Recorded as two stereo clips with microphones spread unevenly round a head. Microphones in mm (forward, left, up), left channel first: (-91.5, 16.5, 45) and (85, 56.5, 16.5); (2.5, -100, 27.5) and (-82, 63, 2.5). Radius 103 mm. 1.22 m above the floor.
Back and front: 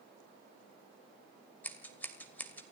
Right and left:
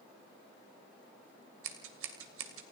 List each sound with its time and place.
1.6 s scissors: 115° left, 2.5 m